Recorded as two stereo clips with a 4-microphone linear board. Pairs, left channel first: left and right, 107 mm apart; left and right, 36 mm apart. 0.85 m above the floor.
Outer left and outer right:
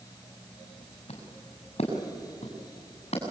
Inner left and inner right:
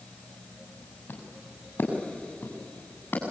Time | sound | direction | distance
1.1 | footsteps | 65° left (ahead or behind) | 5.5 m